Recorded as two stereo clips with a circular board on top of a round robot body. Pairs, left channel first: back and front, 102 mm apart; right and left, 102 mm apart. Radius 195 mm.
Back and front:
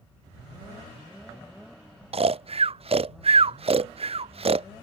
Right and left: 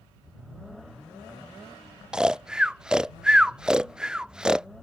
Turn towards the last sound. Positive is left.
turn(degrees=5)